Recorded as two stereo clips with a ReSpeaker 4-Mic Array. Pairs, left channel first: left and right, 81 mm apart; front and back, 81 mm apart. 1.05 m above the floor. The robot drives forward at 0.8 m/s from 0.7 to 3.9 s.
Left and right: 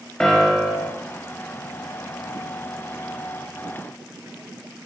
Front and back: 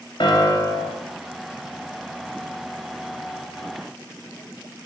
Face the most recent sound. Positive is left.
turn(degrees=175)